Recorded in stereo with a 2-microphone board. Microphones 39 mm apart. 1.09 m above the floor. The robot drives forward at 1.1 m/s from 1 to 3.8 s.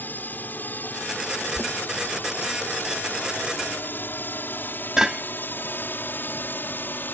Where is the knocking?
50° right (ahead or behind); by 5.2 s 15° right (ahead or behind).